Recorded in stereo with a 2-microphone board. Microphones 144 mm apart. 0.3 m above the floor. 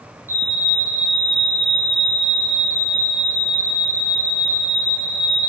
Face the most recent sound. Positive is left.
turn(degrees=-15)  # may be behind; listen again after turning